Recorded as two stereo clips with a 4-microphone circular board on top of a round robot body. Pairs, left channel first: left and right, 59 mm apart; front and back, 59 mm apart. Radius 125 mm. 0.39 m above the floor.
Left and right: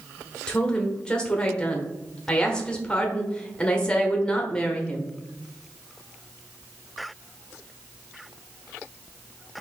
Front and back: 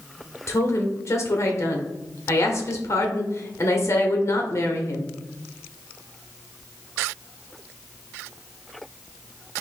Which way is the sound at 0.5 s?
20° left.